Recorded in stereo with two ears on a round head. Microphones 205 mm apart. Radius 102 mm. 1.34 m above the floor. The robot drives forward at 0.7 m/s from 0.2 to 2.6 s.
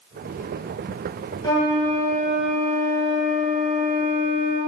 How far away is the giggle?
No giggle in this recording.